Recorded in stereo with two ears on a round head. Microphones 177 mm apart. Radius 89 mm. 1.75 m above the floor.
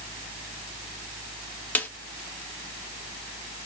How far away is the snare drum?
About 0.6 m.